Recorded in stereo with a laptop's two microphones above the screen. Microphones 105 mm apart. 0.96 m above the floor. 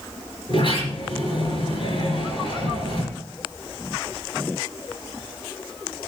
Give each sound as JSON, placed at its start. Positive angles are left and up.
{"t": 0.5, "sound": "a sliding door", "side_deg": 50, "distance_m": 4.5}